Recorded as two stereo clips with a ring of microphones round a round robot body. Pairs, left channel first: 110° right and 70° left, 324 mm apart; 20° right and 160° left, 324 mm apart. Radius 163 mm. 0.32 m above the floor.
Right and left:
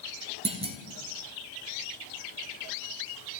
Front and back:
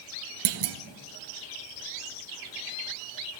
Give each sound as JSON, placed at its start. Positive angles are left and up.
{"t": 0.5, "sound": "a clunk", "azimuth_deg": 140, "distance_m": 0.6}